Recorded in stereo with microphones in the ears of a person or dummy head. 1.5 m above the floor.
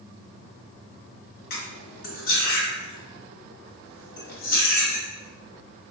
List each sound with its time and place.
1.5 s cutlery clinking: 55° left (ahead or behind), 1.3 m